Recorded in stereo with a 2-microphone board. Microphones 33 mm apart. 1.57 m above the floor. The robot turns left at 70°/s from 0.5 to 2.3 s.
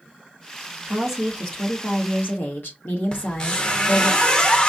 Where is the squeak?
25° left (ahead or behind), 1.0 m.